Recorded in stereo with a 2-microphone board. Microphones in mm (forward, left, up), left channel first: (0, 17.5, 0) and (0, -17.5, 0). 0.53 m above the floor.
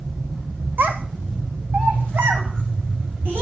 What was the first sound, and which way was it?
A child speaking, 70° right (ahead or behind).